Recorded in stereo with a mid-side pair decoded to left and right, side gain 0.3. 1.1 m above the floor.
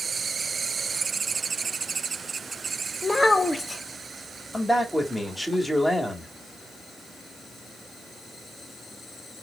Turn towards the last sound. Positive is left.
turn(degrees=10)